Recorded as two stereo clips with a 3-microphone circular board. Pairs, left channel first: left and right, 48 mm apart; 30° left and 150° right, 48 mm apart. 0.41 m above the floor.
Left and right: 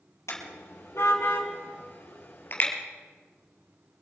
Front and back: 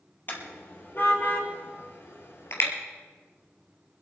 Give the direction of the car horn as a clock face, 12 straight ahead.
9 o'clock.